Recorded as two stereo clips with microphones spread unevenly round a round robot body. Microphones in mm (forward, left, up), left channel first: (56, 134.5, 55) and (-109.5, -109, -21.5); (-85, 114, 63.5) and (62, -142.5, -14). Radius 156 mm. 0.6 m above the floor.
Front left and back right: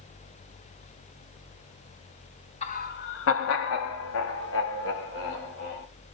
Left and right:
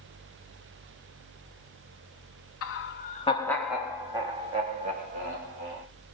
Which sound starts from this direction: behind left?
Laughter, at 2.6 s.